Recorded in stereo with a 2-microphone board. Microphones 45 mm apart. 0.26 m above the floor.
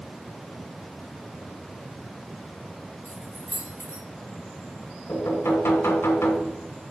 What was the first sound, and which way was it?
Keys jangling, 65° right (ahead or behind).